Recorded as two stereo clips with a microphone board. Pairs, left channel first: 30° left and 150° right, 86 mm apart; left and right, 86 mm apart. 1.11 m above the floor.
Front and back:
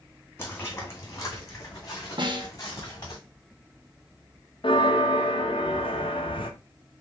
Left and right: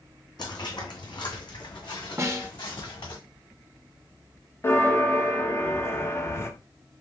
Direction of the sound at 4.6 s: 30° left.